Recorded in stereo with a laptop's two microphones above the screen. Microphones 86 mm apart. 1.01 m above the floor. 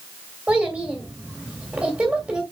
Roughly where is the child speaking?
Centre.